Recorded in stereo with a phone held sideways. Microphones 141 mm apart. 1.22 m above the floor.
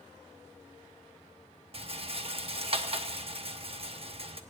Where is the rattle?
45° right (ahead or behind), 0.9 m.